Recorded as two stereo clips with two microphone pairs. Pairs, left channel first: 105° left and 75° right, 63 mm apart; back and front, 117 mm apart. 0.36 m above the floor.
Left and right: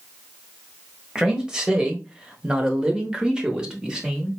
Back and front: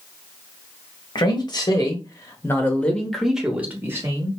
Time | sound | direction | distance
1.1 | a man speaking | 150° right | 1.4 m